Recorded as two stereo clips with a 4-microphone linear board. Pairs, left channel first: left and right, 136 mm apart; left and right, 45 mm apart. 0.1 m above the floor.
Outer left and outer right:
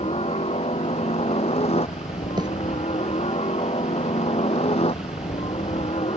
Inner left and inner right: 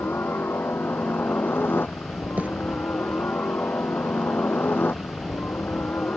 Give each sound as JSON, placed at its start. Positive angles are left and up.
{"t": 0.0, "sound": "a helicopter", "side_deg": 50}
{"t": 2.4, "sound": "a bird", "side_deg": -35}